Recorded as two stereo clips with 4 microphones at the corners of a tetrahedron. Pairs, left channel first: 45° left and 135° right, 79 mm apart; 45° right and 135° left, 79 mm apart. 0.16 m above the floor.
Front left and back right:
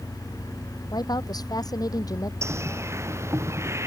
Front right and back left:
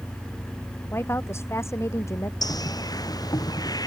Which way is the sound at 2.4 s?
80° right.